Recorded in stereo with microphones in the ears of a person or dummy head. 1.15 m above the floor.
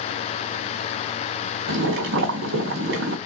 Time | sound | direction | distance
1.7 | boiling | 65° right (ahead or behind) | 1.4 m